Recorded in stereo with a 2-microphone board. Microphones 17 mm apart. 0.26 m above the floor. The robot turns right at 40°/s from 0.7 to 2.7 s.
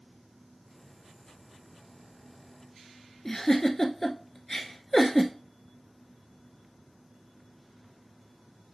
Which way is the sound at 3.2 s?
15° left (ahead or behind).